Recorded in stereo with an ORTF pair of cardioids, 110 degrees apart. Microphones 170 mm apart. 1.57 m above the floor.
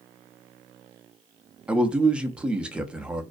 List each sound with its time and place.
1.7 s a man speaking: 5° right, 0.6 m